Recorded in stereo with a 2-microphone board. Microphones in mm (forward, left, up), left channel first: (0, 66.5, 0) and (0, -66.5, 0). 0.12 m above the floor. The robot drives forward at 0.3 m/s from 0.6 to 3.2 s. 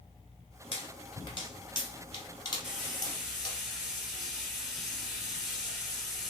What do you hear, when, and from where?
0.7 s a pop: 40° left (ahead or behind), 1.0 m; by 3.6 s 30° left (ahead or behind), 1.2 m
2.6 s frying: centre (ahead or behind), 1.6 m